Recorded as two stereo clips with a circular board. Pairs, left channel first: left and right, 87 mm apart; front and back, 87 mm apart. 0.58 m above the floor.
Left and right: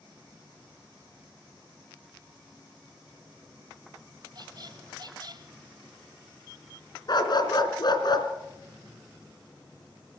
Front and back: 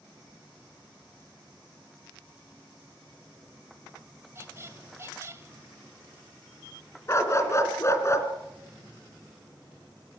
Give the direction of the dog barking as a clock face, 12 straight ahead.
10 o'clock.